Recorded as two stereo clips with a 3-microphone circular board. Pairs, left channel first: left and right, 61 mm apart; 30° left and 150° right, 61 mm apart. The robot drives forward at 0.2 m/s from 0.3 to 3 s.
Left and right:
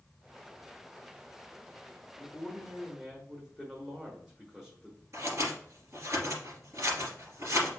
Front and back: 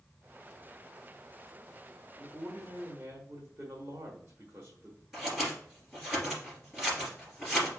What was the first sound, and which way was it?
A man speaking, 170° right.